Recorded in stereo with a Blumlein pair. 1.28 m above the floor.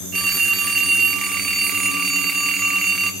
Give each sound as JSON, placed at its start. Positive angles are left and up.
{"t": 0.1, "sound": "a phone ringing", "azimuth_deg": -20, "distance_m": 1.2}